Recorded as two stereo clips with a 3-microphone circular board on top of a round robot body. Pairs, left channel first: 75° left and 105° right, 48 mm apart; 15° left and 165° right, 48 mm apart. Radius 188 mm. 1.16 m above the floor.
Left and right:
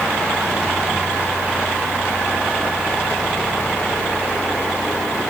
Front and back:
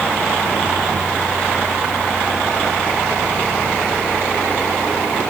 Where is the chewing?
I don't hear chewing.